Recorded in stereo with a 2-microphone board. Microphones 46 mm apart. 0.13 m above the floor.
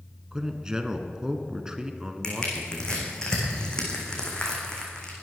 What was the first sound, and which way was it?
A man speaking, 15° right (ahead or behind).